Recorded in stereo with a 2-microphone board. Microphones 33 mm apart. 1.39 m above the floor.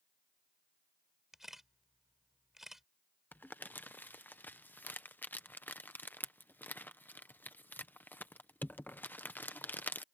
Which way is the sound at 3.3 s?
70° left (ahead or behind).